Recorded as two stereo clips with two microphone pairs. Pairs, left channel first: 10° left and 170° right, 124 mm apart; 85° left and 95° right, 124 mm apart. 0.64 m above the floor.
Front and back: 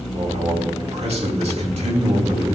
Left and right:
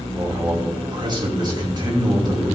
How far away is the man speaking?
About 3 m.